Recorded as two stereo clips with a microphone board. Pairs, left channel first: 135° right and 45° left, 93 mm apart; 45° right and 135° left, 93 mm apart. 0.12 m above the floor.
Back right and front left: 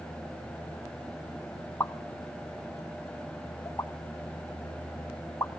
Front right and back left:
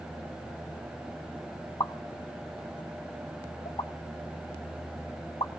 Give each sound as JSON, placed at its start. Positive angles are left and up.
{"t": 1.8, "sound": "a pop", "azimuth_deg": -75, "distance_m": 1.8}